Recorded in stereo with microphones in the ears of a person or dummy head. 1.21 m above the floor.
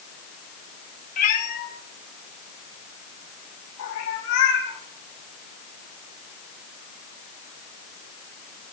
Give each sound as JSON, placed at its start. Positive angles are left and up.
{"t": 1.2, "sound": "a cat meowing", "side_deg": 40, "distance_m": 1.8}